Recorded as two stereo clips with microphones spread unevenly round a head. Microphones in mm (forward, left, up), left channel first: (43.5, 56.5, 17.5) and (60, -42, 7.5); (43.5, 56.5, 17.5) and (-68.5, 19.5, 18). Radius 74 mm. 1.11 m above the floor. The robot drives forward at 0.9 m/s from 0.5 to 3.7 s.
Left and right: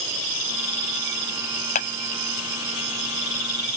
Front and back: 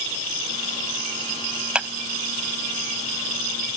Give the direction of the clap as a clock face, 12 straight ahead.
8 o'clock.